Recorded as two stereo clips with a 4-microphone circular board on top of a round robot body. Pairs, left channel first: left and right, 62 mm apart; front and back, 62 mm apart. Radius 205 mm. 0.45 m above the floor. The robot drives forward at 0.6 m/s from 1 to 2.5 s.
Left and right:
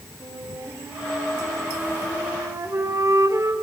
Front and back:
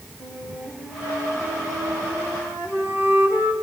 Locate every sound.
0.2 s a flute: 115° right, 3 m; by 3.5 s 130° right, 3.5 m